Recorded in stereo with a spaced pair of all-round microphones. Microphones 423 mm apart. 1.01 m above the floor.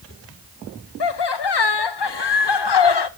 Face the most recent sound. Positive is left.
turn(degrees=65)  # may be behind; listen again after turning